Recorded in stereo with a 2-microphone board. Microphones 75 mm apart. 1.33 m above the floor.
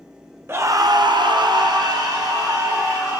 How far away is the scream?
About 0.6 m.